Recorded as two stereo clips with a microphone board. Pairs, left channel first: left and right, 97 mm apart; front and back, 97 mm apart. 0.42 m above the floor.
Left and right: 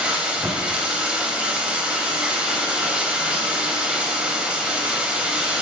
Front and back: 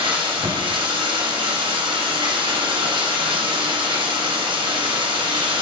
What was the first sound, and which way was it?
Running water, 165° right.